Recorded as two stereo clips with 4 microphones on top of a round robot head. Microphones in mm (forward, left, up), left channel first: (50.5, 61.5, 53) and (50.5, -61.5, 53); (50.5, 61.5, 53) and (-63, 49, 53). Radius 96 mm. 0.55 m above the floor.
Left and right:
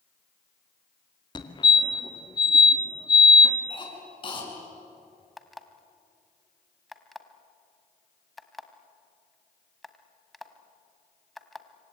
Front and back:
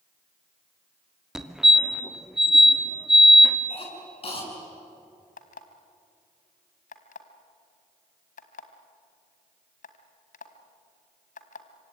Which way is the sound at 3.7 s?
40° left.